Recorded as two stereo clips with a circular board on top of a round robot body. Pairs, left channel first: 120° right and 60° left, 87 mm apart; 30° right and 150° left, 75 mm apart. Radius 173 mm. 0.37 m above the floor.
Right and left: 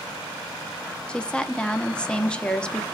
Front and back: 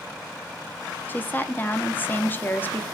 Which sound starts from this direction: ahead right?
A woman speaking, at 1.1 s.